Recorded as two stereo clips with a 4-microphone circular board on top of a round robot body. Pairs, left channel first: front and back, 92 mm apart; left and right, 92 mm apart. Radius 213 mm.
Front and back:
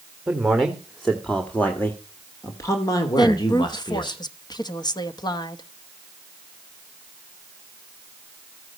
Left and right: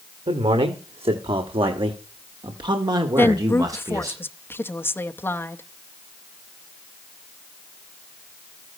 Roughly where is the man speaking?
Right.